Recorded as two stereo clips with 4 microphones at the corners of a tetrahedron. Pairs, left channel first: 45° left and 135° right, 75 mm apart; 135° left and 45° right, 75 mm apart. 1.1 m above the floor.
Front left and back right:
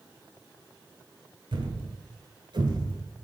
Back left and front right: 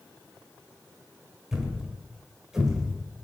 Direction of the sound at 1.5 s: 125° right.